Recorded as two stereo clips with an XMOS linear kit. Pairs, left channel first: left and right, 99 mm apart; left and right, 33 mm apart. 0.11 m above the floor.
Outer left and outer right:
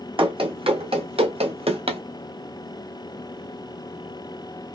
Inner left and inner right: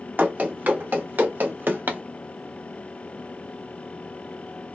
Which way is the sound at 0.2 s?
60° right (ahead or behind).